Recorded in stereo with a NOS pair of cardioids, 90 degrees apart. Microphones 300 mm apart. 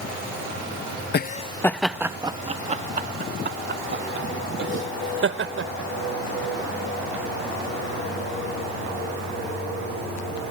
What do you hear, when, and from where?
1.1 s laughter: 35° left; by 7.2 s 45° right